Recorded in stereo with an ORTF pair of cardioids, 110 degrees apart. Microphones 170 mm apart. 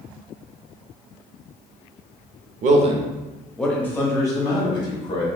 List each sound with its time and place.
2.6 s a man speaking: 55° right, 0.7 m; by 5.3 s 30° left, 1.9 m